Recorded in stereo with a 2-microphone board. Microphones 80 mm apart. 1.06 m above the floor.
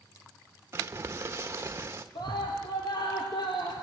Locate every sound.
0.7 s crumpling: 30° right (ahead or behind), 1.3 m
2.1 s a scream: 75° left (ahead or behind), 3.5 m